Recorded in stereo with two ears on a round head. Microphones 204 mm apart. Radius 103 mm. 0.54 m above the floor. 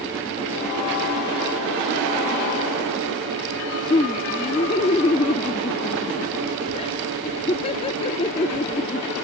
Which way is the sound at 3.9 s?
25° left (ahead or behind).